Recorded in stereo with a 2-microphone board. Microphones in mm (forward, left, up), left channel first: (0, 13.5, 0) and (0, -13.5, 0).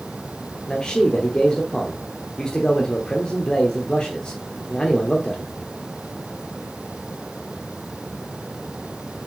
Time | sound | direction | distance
0.7 | a man speaking | 35° left (ahead or behind) | 1.0 m